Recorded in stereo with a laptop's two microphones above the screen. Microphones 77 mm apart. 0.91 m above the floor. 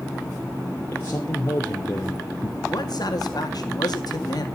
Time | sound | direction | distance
0.9 | a man speaking | 25° left (ahead or behind) | 3 m
2.7 | a man speaking | 60° left (ahead or behind) | 2.0 m